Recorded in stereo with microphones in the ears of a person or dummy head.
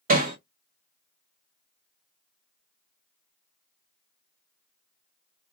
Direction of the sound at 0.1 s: 45° right (ahead or behind).